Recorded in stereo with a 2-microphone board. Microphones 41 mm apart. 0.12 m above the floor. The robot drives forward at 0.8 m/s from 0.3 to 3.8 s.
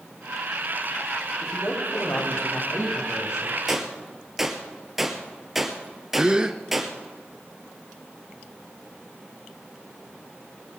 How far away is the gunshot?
About 2 m.